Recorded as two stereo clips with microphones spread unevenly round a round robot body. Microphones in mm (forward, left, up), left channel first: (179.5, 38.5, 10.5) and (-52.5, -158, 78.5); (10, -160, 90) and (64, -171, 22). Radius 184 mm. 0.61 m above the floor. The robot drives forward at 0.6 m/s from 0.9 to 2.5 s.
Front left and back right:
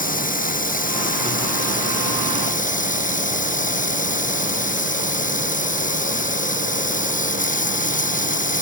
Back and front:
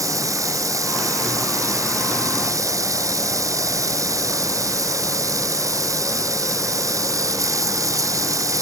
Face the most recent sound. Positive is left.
turn(degrees=-25)